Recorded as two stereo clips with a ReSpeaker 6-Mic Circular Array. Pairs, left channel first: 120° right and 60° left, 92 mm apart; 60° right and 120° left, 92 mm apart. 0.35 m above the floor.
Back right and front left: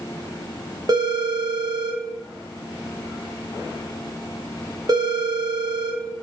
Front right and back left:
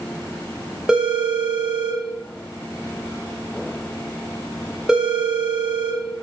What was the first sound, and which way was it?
A phone ringing, 40° left.